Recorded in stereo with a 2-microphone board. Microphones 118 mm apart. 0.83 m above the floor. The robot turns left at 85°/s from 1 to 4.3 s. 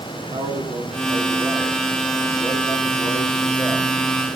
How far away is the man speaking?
About 2.0 m.